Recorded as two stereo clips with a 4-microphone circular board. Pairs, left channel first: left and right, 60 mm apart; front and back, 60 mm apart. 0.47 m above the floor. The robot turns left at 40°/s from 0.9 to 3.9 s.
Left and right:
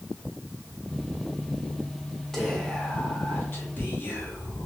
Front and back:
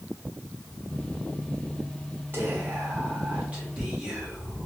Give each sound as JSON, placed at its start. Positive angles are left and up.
{"t": 2.3, "sound": "whispering", "azimuth_deg": 170, "distance_m": 1.0}